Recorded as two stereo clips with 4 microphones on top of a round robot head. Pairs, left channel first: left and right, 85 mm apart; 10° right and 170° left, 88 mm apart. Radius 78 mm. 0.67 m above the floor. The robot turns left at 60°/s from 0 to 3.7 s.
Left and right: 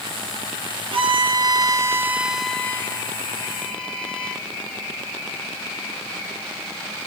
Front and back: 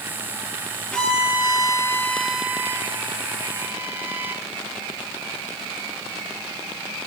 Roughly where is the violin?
Right.